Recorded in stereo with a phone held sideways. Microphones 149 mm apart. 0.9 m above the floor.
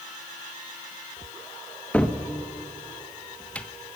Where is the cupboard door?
10° left (ahead or behind), 1.1 m.